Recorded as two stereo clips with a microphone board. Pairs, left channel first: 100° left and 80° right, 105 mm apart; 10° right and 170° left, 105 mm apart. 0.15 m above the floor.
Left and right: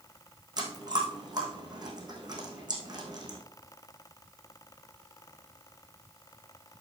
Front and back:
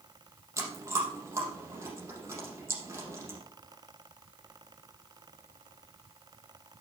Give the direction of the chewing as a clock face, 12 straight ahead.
4 o'clock.